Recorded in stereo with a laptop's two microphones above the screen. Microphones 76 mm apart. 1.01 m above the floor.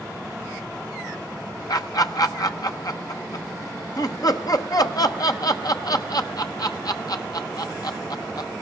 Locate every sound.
1.7 s laughter: 55° left (ahead or behind), 0.8 m